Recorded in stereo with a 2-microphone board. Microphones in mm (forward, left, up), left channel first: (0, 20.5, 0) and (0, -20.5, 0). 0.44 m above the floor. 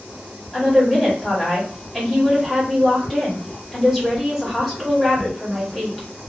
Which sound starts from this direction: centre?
A woman speaking, at 0.5 s.